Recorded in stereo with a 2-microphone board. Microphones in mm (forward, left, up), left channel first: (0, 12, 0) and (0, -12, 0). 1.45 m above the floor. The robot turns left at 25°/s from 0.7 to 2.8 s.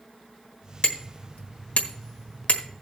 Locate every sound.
0.8 s hammering: 55° left (ahead or behind), 1.4 m; by 2.6 s 65° left (ahead or behind), 1.4 m